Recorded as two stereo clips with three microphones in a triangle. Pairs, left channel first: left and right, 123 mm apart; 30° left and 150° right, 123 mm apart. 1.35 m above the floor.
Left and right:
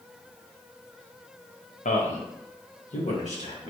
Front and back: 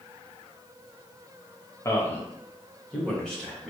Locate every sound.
1.9 s a man speaking: 95° left, 0.8 m; by 3.7 s 115° left, 1.8 m